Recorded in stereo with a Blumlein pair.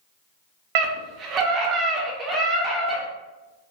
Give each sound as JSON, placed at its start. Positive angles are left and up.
{"t": 0.8, "sound": "a scream", "azimuth_deg": -45, "distance_m": 0.8}